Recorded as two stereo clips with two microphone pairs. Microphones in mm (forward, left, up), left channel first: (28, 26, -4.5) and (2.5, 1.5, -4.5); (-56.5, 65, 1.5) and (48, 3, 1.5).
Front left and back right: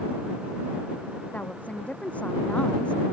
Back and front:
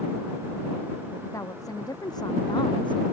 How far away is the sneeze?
I don't hear a sneeze.